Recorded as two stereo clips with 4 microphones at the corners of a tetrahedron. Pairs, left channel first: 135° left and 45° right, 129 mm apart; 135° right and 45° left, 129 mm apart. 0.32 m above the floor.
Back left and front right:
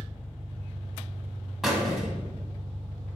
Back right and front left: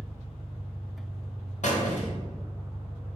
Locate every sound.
0.0 s an engine running: straight behind, 1.8 m
1.6 s a squeak: 135° right, 0.8 m